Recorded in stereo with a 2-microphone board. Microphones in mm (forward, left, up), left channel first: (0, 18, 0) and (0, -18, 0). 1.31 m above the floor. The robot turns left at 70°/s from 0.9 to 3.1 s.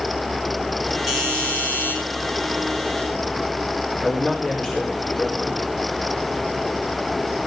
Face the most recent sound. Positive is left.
turn(degrees=25)  # may be behind; listen again after turning